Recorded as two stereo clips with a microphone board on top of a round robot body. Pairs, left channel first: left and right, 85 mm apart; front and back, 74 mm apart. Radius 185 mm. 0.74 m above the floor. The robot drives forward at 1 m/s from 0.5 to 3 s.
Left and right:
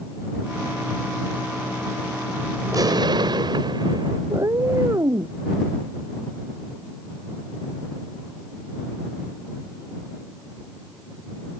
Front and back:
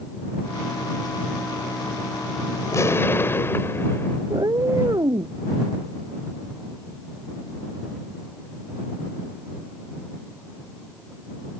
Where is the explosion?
45° right; by 4.2 s 55° right.